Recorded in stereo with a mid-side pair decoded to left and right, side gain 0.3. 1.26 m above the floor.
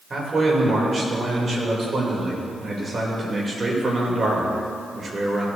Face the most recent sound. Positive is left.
turn(degrees=-50)